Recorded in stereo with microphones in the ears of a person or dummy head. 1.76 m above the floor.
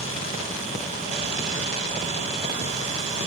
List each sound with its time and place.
0.0 s a fan: 50° right (ahead or behind), 7 m